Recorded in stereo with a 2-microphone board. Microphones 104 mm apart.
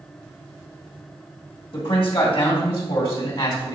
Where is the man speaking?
65° left (ahead or behind), 3 m; by 3.8 s 55° left (ahead or behind), 2.5 m.